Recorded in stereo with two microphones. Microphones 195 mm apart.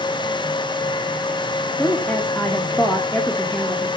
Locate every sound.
1.8 s a woman speaking: 10° left (ahead or behind), 1.6 m